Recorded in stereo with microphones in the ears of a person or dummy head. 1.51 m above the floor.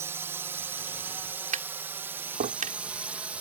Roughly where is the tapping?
Right.